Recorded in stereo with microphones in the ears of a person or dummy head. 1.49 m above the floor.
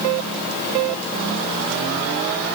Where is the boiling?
No boiling in this recording.